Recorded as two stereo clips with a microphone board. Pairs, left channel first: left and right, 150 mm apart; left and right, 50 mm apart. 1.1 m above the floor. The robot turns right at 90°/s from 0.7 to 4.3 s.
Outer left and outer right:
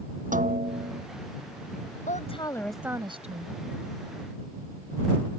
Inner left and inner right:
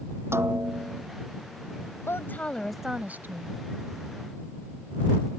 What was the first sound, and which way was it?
A snare drum, 60° right (ahead or behind).